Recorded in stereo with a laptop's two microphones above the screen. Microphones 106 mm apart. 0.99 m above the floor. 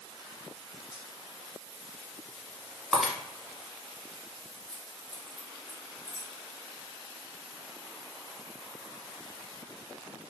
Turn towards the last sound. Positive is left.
turn(degrees=45)  # may be behind; listen again after turning